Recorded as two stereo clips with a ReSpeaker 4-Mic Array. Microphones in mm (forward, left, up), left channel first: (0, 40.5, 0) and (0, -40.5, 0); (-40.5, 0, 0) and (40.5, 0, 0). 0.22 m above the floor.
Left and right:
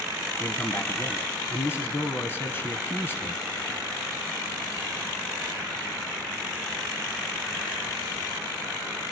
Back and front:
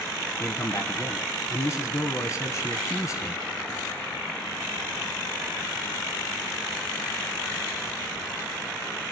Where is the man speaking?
140° left, 1.6 m.